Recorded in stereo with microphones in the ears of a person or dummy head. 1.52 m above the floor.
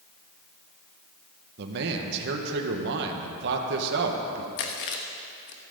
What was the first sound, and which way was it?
A man speaking, 65° right (ahead or behind).